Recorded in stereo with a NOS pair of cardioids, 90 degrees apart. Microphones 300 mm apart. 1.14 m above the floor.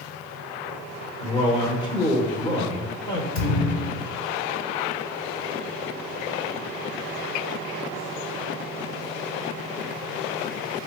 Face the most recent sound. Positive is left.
turn(degrees=60)